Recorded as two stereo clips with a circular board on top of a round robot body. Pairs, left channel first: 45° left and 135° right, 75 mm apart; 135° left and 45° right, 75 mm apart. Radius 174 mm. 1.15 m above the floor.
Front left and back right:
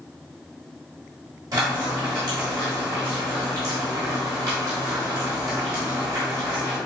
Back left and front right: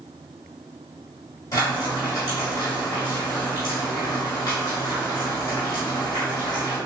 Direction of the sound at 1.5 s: Straight behind.